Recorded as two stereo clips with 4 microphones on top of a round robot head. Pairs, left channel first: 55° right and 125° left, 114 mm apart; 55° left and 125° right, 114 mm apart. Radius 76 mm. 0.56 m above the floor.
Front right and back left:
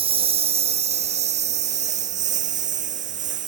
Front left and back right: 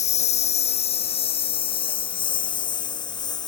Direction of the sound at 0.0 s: 85° left.